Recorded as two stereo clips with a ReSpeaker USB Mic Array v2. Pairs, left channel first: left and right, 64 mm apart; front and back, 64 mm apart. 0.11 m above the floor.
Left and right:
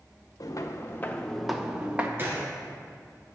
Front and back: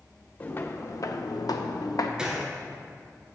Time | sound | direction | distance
0.4 | footsteps | 60° left | 1.2 m
2.2 | a gunshot | 110° right | 1.7 m